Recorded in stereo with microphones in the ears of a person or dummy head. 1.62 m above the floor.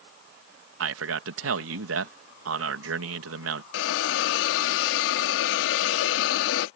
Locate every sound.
0.8 s a man speaking: 80° right
3.7 s a hiss: 75° left (ahead or behind)